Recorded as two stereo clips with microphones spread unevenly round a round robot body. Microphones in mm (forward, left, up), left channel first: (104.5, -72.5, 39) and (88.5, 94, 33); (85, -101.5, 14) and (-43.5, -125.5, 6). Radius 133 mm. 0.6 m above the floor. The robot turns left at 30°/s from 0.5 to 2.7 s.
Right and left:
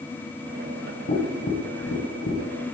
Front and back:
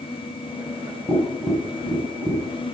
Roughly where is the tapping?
Ahead right.